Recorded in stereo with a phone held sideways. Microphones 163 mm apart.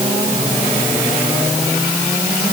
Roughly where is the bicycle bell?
No bicycle bell in this recording.